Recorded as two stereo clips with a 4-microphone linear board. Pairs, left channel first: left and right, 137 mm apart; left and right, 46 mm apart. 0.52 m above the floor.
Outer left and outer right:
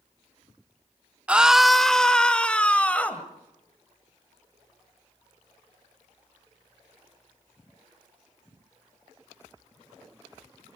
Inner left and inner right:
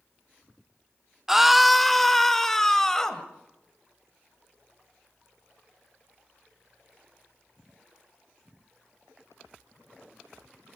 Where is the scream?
10° right (ahead or behind), 0.6 m; by 3.2 s 10° left (ahead or behind), 2.5 m.